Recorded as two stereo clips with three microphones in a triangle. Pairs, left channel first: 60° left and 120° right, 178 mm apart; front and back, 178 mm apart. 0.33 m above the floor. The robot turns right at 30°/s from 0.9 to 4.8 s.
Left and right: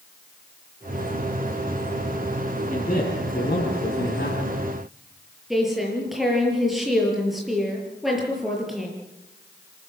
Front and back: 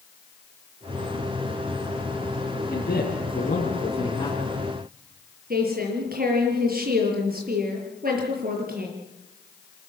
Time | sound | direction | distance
2.7 | a man speaking | 15° left | 4.5 m
5.5 | a woman speaking | 150° left | 6.5 m